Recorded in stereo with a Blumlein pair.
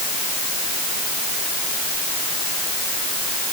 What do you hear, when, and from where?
Only background noise.